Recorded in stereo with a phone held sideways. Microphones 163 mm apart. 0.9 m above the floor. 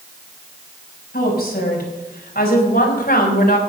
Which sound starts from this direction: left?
A woman speaking, at 1.1 s.